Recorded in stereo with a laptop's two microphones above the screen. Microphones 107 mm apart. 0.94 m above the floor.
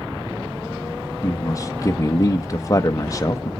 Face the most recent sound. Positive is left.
turn(degrees=35)  # may be behind; listen again after turning